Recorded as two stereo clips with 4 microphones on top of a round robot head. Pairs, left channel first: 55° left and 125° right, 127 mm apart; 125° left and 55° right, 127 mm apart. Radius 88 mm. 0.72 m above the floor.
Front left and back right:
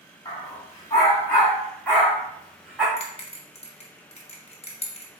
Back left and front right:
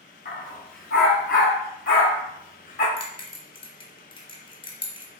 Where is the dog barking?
110° left, 2.5 m; by 2.9 s 150° left, 2.5 m.